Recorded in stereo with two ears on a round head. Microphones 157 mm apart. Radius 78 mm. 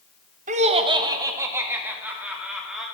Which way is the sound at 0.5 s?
45° right (ahead or behind).